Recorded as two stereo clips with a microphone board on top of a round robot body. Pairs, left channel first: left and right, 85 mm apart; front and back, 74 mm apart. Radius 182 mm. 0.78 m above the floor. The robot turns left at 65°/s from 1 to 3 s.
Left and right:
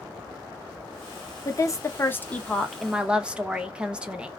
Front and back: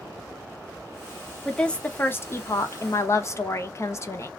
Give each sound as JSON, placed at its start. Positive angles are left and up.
{"t": 1.4, "sound": "a woman speaking", "azimuth_deg": 85, "distance_m": 0.9}